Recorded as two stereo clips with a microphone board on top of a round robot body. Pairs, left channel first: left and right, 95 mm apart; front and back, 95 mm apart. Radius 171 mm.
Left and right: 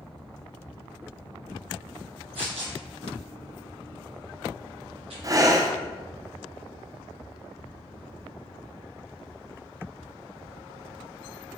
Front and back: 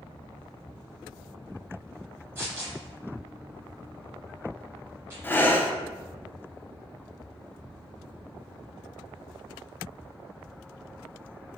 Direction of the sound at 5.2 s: 60° right.